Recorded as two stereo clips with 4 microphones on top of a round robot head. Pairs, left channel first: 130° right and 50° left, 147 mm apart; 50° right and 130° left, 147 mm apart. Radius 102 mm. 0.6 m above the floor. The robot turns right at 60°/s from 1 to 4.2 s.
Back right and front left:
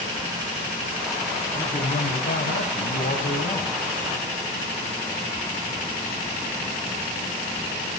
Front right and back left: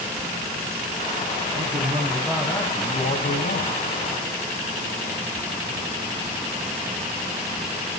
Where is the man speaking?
170° left, 3.5 m; by 3.8 s 55° right, 3.5 m.